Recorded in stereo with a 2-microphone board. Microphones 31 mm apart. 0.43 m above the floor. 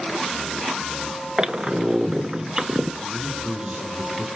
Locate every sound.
1.4 s a squeak: 25° right (ahead or behind), 1.0 m
3.0 s a man speaking: 25° right (ahead or behind), 6 m